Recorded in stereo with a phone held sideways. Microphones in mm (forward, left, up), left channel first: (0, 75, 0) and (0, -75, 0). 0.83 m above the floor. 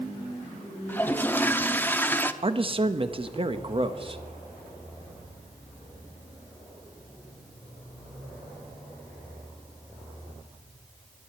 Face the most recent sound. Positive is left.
turn(degrees=-35)  # may be behind; listen again after turning